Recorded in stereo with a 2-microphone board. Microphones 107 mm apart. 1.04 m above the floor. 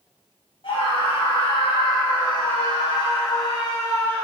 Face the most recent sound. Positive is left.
turn(degrees=30)  # may be behind; listen again after turning